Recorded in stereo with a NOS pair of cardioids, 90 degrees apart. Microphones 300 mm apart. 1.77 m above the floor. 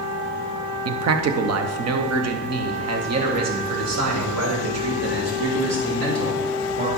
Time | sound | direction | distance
0.8 | a man speaking | 55° right | 0.9 m